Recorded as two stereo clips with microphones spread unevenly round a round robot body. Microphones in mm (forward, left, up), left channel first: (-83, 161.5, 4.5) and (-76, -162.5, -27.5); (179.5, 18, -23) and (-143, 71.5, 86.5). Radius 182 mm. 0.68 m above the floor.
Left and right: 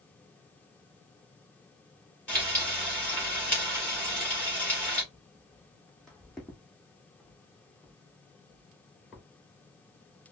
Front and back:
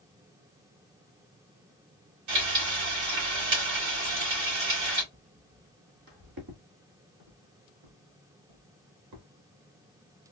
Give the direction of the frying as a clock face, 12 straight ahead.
6 o'clock.